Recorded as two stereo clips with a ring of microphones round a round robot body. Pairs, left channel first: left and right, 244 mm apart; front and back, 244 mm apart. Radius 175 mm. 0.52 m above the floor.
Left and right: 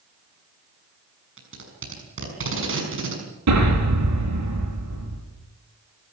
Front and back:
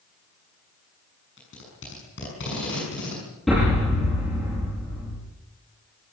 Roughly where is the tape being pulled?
Ahead right.